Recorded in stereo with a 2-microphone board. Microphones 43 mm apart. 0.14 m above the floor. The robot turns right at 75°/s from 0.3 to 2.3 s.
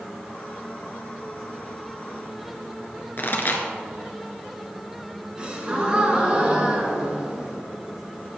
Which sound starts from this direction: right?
A gasp, at 5.4 s.